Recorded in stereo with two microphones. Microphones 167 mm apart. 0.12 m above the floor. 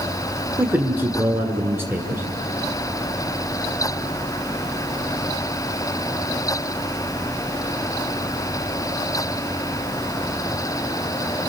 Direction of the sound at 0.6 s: 15° right (ahead or behind).